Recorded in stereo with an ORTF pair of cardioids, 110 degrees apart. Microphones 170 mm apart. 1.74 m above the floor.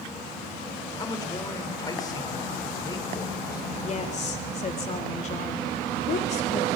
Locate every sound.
1.0 s a man speaking: 20° left, 5 m
3.8 s a woman speaking: 40° left, 4 m